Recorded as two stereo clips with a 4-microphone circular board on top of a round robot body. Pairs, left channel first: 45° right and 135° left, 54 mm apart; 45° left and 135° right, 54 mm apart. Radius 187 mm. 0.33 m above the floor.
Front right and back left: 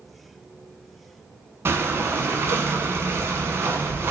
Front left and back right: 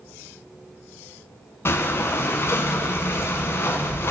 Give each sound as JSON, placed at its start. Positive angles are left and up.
{"t": 1.6, "sound": "breathing", "azimuth_deg": 90, "distance_m": 0.8}